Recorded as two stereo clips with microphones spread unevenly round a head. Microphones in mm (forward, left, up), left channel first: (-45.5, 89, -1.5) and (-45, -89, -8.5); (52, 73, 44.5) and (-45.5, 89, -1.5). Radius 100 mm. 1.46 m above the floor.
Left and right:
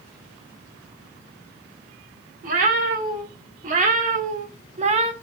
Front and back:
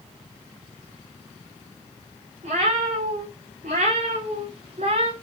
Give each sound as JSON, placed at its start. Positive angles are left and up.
{"t": 2.4, "sound": "a cat meowing", "azimuth_deg": -130, "distance_m": 2.0}